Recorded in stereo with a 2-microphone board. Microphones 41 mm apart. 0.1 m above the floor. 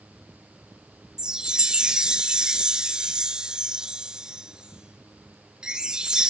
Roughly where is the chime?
Centre.